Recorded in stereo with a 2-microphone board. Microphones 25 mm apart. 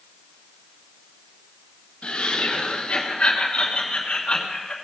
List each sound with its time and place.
2.0 s laughter: 70° left (ahead or behind), 2.5 m; by 4.7 s 50° left (ahead or behind), 2.5 m